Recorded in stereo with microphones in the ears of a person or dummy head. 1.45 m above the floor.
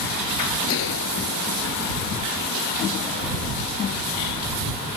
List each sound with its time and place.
0.7 s a gunshot: 70° left (ahead or behind)